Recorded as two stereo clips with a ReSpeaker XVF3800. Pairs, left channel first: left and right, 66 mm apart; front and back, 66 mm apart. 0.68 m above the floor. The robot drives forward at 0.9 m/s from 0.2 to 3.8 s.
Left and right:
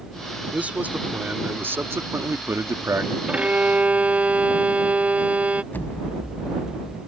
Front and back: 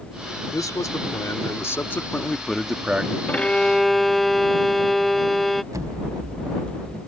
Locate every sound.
0.5 s a man speaking: 20° right; by 3.2 s 120° right
3.3 s a violin: 40° right; by 5.6 s 85° right
5.7 s an explosion: 150° left